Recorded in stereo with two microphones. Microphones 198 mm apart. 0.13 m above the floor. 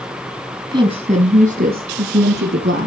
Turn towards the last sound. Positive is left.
turn(degrees=-65)  # may be behind; listen again after turning